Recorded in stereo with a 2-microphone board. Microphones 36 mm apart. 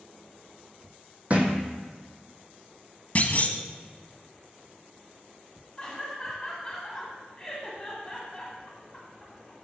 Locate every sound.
1.3 s a thud: 35° right (ahead or behind), 1.5 m
3.1 s a clunk: 40° left (ahead or behind), 0.7 m
5.8 s laughter: 10° left (ahead or behind), 1.8 m